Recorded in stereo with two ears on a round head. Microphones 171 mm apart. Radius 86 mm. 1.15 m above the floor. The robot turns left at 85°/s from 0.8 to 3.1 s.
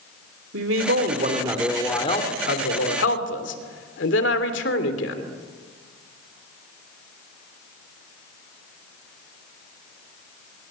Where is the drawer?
I don't hear a drawer.